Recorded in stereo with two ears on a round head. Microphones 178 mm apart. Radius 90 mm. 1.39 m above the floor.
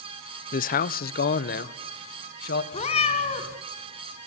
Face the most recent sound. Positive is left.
turn(degrees=35)  # may be behind; listen again after turning